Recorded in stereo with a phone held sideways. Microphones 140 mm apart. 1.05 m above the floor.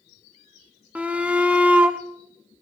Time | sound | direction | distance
0.9 | a shout | 10° right (ahead or behind) | 1.2 m